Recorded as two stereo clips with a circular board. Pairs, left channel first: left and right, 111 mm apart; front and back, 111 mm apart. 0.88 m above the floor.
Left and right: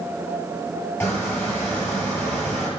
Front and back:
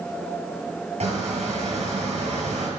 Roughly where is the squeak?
Behind.